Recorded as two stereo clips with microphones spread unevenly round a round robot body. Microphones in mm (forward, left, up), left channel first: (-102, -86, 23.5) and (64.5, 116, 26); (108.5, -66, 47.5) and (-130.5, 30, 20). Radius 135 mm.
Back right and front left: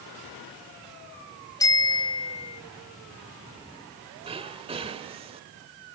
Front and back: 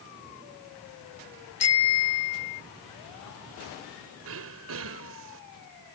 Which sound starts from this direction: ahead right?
A bicycle bell, at 1.6 s.